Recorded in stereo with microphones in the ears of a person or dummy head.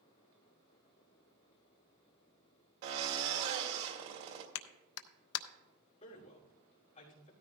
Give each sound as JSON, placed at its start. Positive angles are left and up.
{"t": 2.8, "sound": "a drill", "side_deg": -65, "distance_m": 2.0}
{"t": 4.5, "sound": "a clap", "side_deg": 80, "distance_m": 0.7}
{"t": 6.0, "sound": "a man speaking", "side_deg": 35, "distance_m": 2.5}